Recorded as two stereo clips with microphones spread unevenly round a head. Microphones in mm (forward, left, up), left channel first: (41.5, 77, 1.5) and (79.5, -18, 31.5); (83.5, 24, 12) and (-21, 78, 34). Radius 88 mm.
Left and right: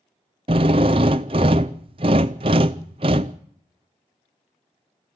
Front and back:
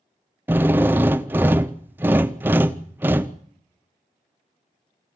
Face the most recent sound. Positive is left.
turn(degrees=-125)